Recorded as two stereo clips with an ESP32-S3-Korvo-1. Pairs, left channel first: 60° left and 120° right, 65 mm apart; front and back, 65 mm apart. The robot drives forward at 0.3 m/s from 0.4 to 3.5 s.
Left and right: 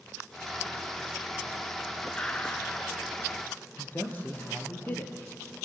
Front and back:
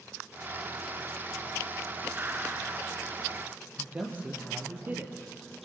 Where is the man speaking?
120° left, 4 m.